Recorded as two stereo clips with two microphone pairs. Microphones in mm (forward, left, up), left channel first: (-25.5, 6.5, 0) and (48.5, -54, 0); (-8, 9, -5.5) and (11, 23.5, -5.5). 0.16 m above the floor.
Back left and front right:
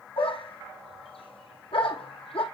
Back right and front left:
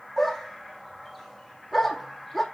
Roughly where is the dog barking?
Behind left.